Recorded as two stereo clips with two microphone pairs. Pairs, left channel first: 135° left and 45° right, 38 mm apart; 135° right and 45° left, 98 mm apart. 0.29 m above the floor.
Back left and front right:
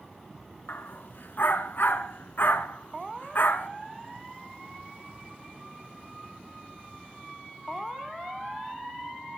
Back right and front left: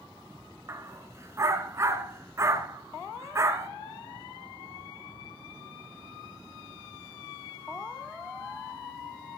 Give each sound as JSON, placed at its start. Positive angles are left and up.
{"t": 0.7, "sound": "a dog barking", "azimuth_deg": 105, "distance_m": 1.6}